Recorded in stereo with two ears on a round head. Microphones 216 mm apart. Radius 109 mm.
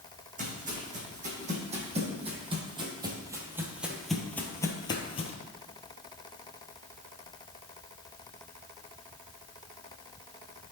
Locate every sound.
0.4 s footsteps: 35° right (ahead or behind), 2.5 m; by 5.3 s 25° left (ahead or behind), 1.1 m